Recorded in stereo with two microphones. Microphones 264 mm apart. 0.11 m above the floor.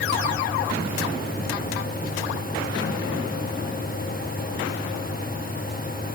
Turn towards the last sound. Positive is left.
No sound to turn to.